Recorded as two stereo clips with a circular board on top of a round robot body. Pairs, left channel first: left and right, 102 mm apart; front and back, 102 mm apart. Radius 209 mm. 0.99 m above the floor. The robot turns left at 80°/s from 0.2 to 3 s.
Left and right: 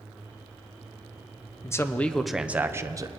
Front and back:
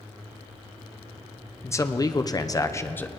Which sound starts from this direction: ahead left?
A man speaking, at 1.6 s.